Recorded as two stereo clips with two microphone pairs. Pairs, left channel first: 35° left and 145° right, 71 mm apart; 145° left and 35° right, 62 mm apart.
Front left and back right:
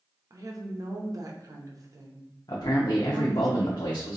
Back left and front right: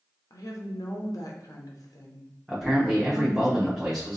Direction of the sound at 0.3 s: 175° left.